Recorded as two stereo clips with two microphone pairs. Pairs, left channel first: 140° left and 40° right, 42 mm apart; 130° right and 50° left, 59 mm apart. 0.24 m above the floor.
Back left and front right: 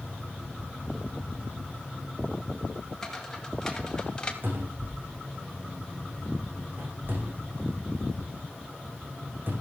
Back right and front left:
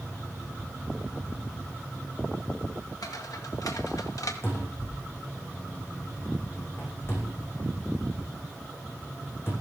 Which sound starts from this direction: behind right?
Footsteps, at 3.0 s.